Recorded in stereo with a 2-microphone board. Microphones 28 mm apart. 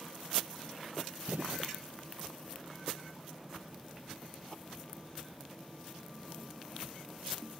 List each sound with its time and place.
1.3 s a gunshot: 70° right (ahead or behind)